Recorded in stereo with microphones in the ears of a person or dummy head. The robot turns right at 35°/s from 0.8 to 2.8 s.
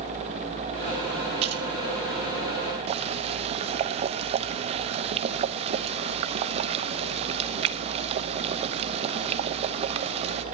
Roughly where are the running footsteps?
No running footsteps in this recording.